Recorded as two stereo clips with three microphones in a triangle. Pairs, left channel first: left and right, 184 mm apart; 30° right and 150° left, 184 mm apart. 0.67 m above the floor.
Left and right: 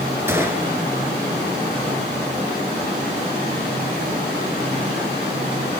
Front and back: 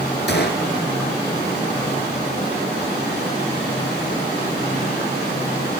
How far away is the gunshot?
About 2 m.